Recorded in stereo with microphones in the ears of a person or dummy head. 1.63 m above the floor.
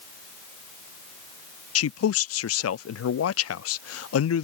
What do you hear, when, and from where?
1.8 s a man speaking: 75° left (ahead or behind)